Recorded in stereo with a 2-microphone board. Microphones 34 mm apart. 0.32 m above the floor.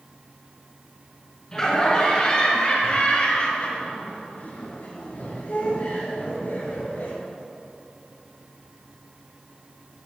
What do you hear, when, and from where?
1.5 s laughter: 20° left (ahead or behind), 4 m; by 7.1 s 75° left (ahead or behind), 5 m